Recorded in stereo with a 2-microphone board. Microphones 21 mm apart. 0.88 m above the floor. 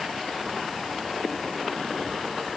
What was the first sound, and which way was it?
Only background noise.